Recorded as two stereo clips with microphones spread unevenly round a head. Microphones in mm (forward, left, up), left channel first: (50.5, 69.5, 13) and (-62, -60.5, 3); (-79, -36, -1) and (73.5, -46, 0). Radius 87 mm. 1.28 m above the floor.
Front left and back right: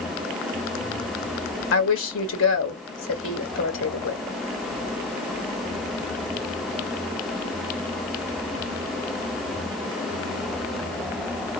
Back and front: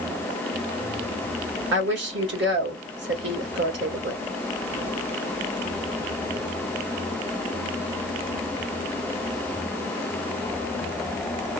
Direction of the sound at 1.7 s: 30° left.